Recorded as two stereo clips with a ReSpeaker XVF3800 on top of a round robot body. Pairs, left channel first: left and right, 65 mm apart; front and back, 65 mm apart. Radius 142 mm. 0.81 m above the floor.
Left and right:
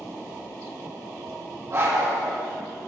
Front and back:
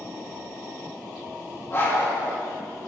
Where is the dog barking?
45° right, 3 m.